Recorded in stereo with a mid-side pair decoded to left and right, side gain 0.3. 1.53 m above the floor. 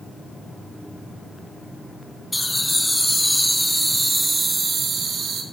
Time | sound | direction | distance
2.3 | laughter | 10° left | 1.9 m